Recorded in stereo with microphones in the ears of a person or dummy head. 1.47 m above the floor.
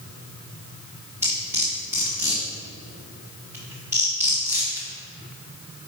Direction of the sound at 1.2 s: 15° right (ahead or behind).